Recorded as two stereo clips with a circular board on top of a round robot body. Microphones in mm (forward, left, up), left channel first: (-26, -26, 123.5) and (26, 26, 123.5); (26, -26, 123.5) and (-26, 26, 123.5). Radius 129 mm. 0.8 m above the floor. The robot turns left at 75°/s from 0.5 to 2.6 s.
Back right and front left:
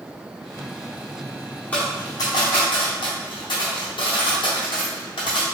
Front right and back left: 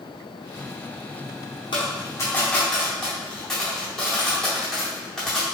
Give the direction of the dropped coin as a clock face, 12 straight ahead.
2 o'clock.